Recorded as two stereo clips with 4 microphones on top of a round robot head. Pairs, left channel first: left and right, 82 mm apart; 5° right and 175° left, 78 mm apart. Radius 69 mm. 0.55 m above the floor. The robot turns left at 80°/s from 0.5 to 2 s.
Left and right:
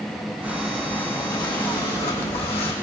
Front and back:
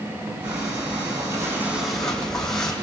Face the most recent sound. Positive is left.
turn(degrees=75)